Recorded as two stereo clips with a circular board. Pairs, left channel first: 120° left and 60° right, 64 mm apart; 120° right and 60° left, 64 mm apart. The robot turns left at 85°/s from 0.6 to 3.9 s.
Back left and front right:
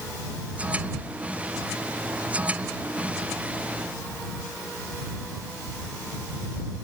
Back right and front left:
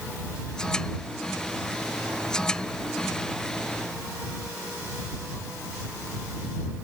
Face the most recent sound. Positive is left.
No sound to turn to.